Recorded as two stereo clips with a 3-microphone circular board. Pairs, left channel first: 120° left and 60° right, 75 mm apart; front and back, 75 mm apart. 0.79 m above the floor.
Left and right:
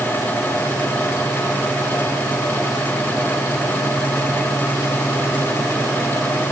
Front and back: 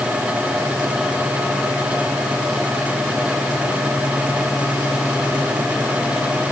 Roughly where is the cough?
No cough in this recording.